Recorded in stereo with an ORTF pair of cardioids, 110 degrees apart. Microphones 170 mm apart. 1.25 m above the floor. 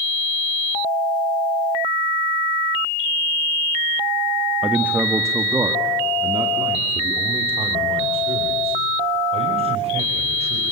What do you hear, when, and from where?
4.6 s a man speaking: 5° right, 1.3 m; by 10.7 s 35° right, 5 m